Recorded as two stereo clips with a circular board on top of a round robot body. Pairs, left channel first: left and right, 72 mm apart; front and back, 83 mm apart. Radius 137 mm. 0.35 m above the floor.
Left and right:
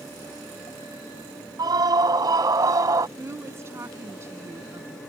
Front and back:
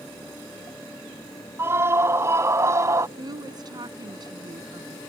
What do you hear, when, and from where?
1.6 s a scream: 120° right; by 3.1 s 130° right
3.2 s a woman speaking: 145° right